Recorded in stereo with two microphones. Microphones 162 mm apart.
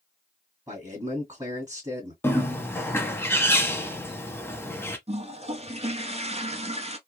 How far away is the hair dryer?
No hair dryer in this recording.